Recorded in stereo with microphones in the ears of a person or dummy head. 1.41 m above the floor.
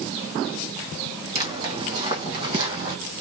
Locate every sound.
1.4 s footsteps: 25° right (ahead or behind), 3.5 m; by 3.0 s 30° right (ahead or behind), 2.5 m